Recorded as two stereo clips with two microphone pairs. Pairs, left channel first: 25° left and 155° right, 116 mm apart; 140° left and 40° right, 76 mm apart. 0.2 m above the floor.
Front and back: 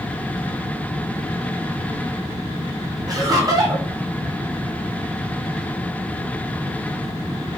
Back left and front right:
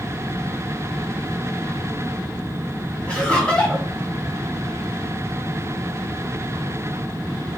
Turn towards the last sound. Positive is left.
turn(degrees=-165)